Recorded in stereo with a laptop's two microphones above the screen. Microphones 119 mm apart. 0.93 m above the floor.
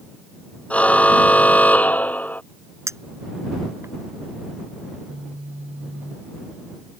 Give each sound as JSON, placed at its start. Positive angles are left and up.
{"t": 0.7, "sound": "a car horn", "side_deg": 10}
{"t": 2.9, "sound": "a clink", "side_deg": -25}
{"t": 4.9, "sound": "a phone buzzing", "side_deg": -75}